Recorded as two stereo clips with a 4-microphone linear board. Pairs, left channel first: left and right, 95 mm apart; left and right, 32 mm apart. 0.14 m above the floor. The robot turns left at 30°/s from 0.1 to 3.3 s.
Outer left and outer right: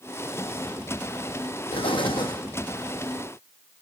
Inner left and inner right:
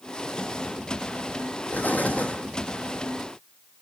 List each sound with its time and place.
1.7 s an explosion: 70° left (ahead or behind), 1.5 m; by 2.4 s 50° left (ahead or behind), 1.5 m